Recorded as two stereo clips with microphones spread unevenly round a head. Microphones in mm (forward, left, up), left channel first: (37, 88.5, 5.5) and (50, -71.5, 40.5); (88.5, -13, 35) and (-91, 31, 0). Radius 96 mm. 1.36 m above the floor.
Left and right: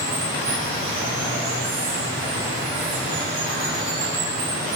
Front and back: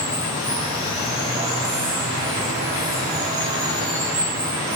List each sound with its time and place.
0.0 s running water: 120° right, 8.5 m